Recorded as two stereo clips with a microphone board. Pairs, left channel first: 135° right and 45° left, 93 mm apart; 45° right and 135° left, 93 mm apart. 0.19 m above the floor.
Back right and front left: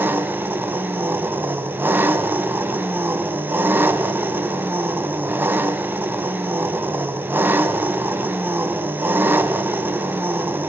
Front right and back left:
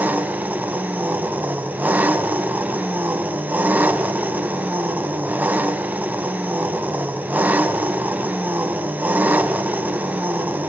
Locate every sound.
0.0 s an engine running: 85° left, 1.2 m